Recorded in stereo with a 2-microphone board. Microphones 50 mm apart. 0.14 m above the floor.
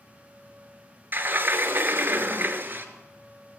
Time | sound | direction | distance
1.1 | a sliding door | 45° right (ahead or behind) | 0.7 m